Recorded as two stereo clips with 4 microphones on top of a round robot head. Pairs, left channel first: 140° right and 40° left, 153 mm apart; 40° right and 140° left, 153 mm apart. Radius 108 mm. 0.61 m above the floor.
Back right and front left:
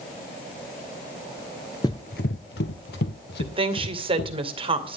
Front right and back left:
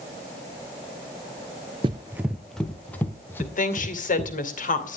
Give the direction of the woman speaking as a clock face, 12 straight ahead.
12 o'clock.